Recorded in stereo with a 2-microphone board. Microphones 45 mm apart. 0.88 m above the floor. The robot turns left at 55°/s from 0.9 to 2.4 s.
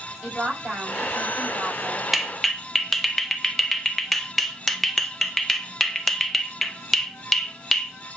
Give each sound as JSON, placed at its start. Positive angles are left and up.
{"t": 0.2, "sound": "a woman speaking", "azimuth_deg": -40, "distance_m": 5.5}
{"t": 2.1, "sound": "a clap", "side_deg": -5, "distance_m": 0.8}